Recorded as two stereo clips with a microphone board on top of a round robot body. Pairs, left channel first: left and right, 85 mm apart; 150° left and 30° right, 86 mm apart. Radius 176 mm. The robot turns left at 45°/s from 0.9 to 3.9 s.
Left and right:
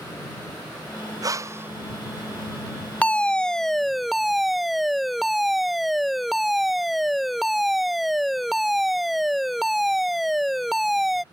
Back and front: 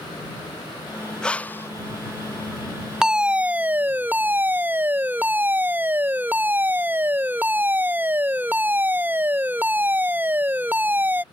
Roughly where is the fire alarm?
Ahead left.